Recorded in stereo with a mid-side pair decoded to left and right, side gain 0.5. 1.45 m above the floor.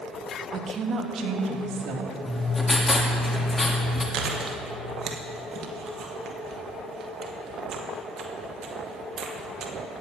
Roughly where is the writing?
Ahead left.